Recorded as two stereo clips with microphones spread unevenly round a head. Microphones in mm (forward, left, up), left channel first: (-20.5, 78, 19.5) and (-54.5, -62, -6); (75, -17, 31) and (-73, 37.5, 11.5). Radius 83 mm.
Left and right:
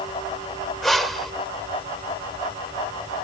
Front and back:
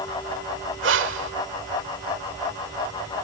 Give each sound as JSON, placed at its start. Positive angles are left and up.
{"t": 0.8, "sound": "breathing", "azimuth_deg": 160, "distance_m": 1.3}